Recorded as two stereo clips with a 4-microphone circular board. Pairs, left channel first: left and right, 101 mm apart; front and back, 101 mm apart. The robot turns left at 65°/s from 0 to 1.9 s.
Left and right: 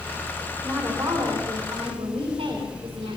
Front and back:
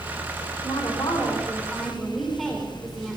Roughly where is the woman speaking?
Ahead.